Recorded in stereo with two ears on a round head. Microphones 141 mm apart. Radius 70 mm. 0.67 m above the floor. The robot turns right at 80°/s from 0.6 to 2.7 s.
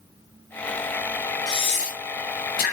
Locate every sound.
1.5 s breathing: 25° left (ahead or behind), 1.4 m; by 2.7 s 55° left (ahead or behind), 1.4 m